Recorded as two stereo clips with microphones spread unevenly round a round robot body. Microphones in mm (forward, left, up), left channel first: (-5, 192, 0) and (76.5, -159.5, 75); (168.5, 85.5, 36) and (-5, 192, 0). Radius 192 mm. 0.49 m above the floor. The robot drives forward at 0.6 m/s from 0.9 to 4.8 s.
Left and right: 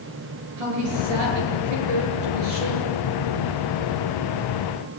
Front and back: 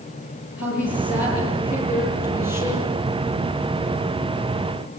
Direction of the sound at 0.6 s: 95° right.